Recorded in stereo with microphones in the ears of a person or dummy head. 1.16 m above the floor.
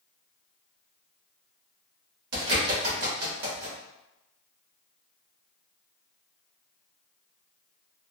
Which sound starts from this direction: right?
A bird, at 2.3 s.